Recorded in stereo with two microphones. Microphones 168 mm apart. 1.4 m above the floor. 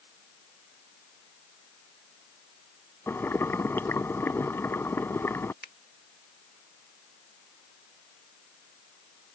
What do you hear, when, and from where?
3.1 s boiling: 15° left (ahead or behind)
5.6 s a finger snap: 70° left (ahead or behind)